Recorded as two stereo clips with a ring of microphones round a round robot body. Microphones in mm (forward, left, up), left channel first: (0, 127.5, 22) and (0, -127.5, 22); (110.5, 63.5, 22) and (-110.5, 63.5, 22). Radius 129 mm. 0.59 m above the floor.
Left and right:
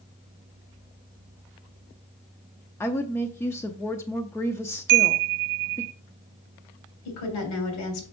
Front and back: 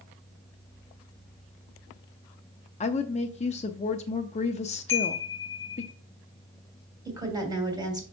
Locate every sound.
2.8 s a woman speaking: 20° left, 0.6 m
4.9 s a chime: 80° right, 0.8 m
7.0 s a woman speaking: 110° left, 3 m